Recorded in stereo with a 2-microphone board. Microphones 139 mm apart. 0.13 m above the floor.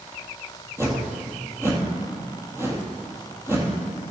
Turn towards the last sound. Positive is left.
turn(degrees=-20)  # may be behind; listen again after turning